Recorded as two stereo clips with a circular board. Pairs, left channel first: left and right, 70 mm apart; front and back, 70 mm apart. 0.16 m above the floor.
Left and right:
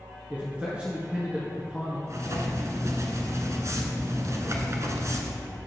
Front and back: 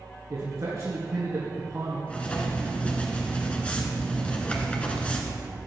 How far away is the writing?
About 1.2 m.